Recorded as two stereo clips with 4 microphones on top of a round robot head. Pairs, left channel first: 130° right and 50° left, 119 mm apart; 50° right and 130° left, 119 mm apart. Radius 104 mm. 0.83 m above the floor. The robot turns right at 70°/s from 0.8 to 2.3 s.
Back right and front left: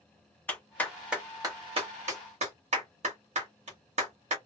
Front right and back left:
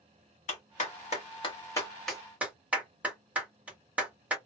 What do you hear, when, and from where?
0.5 s a clap: 55° right, 1.7 m; by 4.4 s 50° left, 1.7 m